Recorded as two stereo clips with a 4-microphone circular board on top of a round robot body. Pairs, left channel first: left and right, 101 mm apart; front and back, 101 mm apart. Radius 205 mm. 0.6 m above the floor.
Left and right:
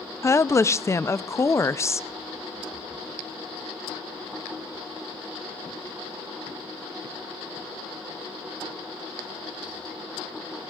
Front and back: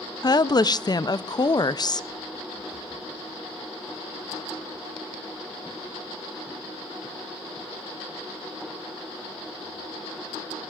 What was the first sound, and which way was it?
A woman speaking, 35° left.